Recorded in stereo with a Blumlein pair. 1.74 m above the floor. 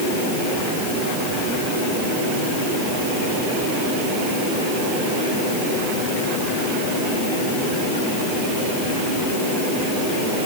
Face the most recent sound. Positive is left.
No sound to turn to.